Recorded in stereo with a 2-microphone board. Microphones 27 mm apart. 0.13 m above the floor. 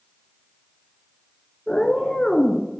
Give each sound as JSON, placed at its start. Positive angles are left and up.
{"t": 1.7, "sound": "a cat meowing", "side_deg": 25, "distance_m": 0.6}